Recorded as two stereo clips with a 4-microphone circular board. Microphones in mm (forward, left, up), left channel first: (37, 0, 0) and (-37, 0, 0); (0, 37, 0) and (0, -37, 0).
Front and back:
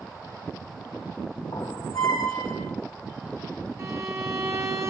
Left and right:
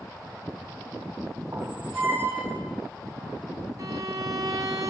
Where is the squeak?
30° right, 2.5 m.